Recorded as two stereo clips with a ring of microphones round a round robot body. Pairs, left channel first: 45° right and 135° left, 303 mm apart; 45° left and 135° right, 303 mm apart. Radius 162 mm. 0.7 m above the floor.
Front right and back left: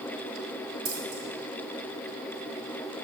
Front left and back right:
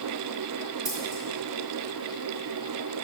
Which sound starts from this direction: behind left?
Scissors, at 0.8 s.